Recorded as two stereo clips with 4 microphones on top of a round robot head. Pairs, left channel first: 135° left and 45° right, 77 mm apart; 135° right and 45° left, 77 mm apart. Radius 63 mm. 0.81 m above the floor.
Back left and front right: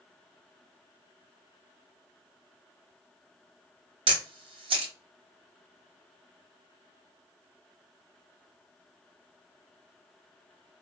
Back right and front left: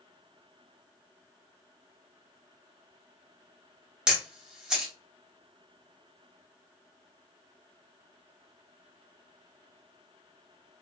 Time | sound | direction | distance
4.1 | a camera shutter | 35° right | 0.9 m